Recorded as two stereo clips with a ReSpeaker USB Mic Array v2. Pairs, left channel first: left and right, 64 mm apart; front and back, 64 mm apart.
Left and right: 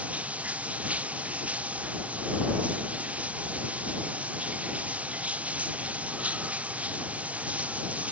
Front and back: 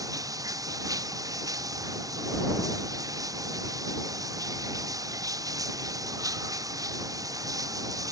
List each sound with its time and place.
0.0 s running water: 160° right